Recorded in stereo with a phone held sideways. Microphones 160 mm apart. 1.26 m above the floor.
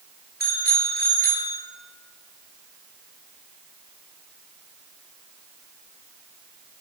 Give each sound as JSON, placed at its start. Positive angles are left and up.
{"t": 0.4, "sound": "a bicycle bell", "side_deg": -85, "distance_m": 3.0}